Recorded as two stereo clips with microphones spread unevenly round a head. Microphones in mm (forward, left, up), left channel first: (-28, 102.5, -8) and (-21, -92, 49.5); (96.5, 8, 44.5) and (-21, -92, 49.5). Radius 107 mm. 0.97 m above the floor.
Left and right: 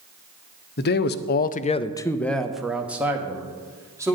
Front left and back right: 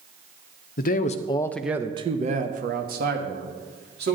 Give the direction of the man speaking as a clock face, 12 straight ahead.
10 o'clock.